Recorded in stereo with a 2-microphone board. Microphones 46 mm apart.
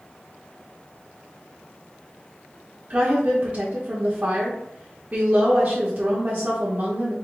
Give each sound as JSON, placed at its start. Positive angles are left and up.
{"t": 2.9, "sound": "a woman speaking", "side_deg": -35, "distance_m": 0.8}